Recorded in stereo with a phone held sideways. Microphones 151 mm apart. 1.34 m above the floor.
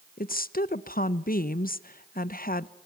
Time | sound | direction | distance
0.2 | a woman speaking | 65° left (ahead or behind) | 0.8 m